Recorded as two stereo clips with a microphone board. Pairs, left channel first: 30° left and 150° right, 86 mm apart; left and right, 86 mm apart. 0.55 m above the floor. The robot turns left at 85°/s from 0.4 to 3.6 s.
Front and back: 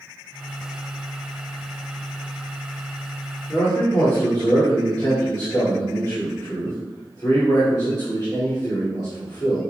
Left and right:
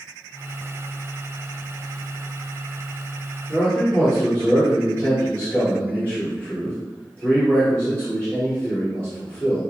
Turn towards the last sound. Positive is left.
turn(degrees=20)